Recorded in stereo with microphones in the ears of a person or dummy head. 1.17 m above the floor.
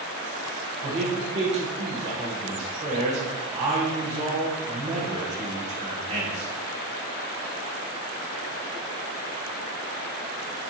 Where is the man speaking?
35° right (ahead or behind), 1.7 m.